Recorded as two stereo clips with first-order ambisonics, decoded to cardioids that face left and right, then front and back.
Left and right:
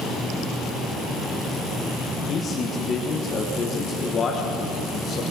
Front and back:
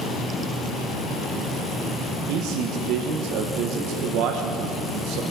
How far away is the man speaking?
About 1.3 m.